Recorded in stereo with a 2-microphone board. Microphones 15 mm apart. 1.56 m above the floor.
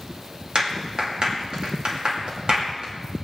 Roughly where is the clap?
Right.